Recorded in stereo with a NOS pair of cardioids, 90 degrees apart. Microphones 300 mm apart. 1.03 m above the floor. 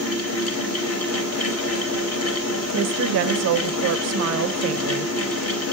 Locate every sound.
0.0 s a fan: 55° left, 0.9 m
2.7 s a woman speaking: 60° right, 0.5 m